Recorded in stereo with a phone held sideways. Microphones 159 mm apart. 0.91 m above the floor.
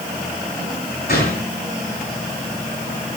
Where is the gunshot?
80° left, 5.5 m.